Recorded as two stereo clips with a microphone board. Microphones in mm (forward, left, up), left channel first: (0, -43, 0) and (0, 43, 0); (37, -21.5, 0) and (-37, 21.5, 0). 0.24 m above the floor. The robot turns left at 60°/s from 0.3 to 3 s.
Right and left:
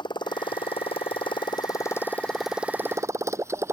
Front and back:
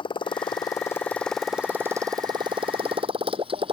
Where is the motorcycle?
55° right; by 3.7 s 150° left.